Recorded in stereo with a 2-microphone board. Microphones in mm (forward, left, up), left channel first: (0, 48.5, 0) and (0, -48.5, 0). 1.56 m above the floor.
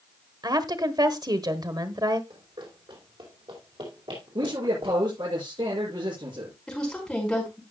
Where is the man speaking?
65° right (ahead or behind), 7 m.